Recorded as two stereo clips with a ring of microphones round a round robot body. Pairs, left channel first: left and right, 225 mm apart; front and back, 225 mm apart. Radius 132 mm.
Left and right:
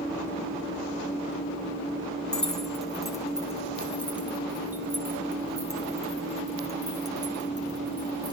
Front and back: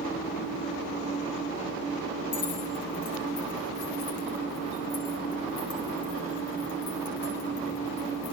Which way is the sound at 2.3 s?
5° left.